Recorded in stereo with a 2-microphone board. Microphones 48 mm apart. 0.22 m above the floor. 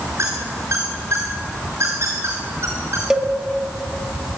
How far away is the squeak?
About 4.5 m.